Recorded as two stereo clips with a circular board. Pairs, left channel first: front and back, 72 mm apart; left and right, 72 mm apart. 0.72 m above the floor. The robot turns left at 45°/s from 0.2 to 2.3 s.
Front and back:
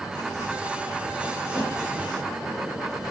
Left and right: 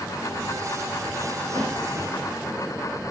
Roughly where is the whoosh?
Ahead right.